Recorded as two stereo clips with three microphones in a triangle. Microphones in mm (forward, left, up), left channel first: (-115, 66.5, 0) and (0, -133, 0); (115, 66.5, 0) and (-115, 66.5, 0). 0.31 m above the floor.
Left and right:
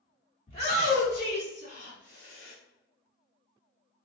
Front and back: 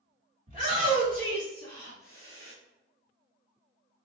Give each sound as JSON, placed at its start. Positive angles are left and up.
{"t": 0.5, "sound": "a shout", "azimuth_deg": 145, "distance_m": 1.8}